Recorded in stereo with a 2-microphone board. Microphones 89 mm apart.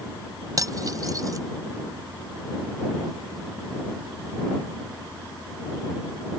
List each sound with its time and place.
0.6 s cutlery clinking: 40° right (ahead or behind)